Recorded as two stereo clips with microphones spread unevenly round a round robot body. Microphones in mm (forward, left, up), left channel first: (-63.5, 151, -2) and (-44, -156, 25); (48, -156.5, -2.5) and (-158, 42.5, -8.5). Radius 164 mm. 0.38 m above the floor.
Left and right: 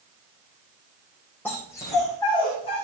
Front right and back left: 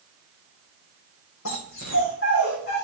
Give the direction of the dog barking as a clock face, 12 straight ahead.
12 o'clock.